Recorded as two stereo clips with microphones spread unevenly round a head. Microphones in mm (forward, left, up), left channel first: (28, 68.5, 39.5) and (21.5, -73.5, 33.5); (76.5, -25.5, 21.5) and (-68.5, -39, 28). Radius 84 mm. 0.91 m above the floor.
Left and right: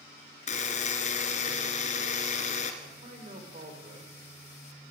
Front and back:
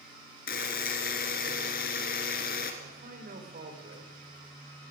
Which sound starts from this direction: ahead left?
A buzzer, at 0.5 s.